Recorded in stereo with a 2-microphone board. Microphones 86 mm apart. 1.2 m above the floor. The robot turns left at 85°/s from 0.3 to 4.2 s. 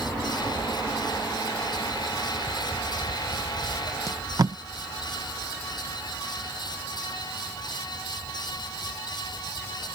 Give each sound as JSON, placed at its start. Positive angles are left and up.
{"t": 4.1, "sound": "tape being pulled", "side_deg": -35}